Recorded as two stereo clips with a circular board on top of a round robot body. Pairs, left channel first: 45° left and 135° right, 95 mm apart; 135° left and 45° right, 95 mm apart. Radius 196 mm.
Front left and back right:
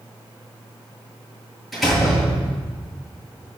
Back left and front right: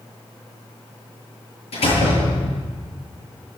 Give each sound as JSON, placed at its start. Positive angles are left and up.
{"t": 1.7, "sound": "a door slam", "azimuth_deg": 135, "distance_m": 8.0}